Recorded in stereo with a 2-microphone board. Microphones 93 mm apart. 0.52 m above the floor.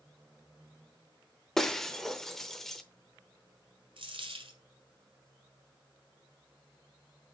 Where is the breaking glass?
5° left (ahead or behind), 0.7 m.